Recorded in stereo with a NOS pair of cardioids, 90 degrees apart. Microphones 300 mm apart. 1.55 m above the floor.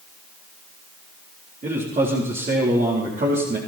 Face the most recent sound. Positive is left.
turn(degrees=-25)